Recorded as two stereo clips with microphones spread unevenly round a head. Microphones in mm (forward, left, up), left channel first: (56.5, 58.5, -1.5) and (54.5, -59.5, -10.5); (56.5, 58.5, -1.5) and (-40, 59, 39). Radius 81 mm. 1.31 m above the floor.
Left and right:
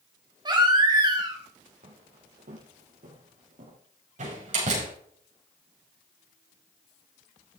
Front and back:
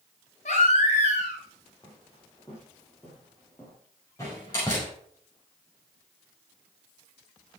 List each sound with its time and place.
0.5 s a baby crying: 40° right, 3.5 m
1.8 s footsteps: 80° right, 3.5 m
4.2 s a door slam: 70° right, 5.5 m